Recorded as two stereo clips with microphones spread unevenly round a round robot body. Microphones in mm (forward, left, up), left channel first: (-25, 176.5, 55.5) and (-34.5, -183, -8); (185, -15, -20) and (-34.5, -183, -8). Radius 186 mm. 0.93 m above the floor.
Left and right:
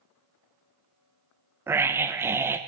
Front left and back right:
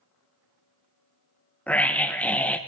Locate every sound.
1.7 s a scream: 35° right, 0.6 m